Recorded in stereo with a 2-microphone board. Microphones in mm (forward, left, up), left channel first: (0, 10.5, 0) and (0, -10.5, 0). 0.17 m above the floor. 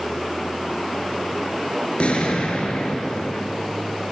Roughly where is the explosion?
Left.